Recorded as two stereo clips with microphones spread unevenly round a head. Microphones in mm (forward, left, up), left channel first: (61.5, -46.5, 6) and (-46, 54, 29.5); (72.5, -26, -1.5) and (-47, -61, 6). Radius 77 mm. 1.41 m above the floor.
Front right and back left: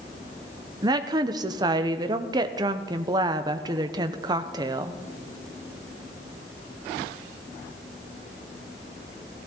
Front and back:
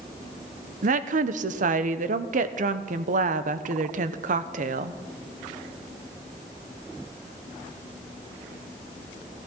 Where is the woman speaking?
155° right, 0.9 m.